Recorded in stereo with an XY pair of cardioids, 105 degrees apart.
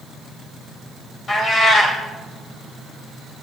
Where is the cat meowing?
45° left, 3 m.